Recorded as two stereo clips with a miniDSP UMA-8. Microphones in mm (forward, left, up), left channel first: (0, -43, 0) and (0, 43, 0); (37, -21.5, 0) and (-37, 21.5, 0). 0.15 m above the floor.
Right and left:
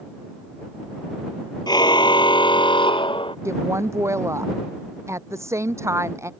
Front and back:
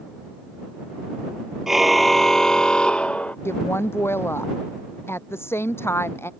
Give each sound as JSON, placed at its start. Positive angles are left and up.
{"t": 1.7, "sound": "a car horn", "azimuth_deg": -125}
{"t": 3.5, "sound": "a woman speaking", "azimuth_deg": 30}